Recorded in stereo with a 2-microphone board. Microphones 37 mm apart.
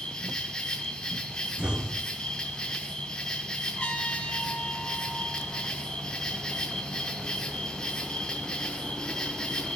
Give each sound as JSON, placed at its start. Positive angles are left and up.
{"t": 0.0, "sound": "an insect", "side_deg": 20, "distance_m": 2.5}
{"t": 1.6, "sound": "an explosion", "side_deg": -35, "distance_m": 1.0}
{"t": 3.8, "sound": "a trumpet", "side_deg": 25, "distance_m": 4.5}